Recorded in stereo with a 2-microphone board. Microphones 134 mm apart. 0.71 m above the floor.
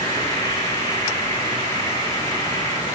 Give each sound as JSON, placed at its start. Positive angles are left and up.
{"t": 0.0, "sound": "an insect", "side_deg": 25, "distance_m": 8.5}